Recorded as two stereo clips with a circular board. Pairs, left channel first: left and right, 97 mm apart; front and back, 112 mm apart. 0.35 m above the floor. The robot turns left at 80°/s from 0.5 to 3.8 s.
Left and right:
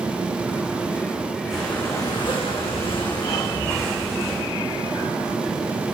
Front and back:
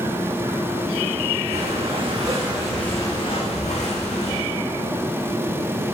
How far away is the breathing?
About 4.5 m.